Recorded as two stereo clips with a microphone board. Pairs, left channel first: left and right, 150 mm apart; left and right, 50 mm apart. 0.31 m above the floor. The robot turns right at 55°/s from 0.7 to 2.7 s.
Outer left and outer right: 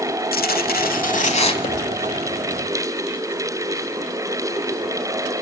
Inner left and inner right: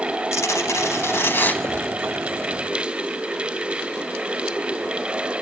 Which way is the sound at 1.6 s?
85° left.